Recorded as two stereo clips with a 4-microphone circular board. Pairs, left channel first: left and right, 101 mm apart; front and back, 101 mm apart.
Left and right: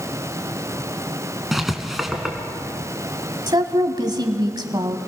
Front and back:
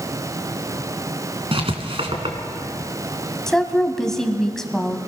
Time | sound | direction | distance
1.5 | writing | straight behind | 2 m
3.5 | a woman speaking | 85° right | 1.7 m